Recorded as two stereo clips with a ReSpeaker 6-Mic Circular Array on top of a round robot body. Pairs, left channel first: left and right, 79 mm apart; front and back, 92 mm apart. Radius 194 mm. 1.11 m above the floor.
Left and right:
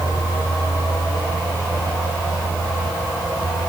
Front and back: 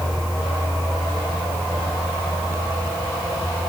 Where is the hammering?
No hammering in this recording.